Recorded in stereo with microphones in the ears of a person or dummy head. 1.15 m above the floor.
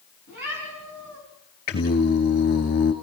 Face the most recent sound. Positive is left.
turn(degrees=50)  # may be behind; listen again after turning